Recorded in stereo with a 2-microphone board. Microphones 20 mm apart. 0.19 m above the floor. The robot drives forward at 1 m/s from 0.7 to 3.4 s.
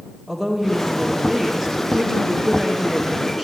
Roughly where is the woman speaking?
Centre.